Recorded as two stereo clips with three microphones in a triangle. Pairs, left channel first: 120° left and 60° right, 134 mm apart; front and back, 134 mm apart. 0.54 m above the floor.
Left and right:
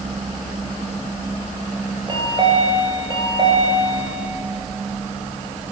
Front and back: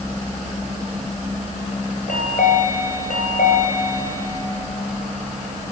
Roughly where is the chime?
Ahead.